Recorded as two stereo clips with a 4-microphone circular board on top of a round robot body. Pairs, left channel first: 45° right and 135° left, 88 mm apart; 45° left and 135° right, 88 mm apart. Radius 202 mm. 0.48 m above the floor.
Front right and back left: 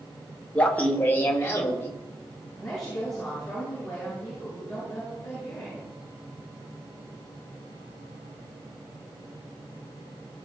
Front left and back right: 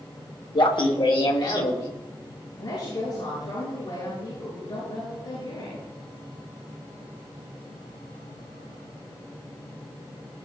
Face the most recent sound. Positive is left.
turn(degrees=40)